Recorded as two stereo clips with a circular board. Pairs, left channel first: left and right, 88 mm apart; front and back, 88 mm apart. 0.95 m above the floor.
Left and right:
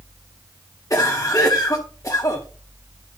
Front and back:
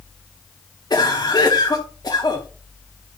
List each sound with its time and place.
0.9 s a cough: 40° left, 1.7 m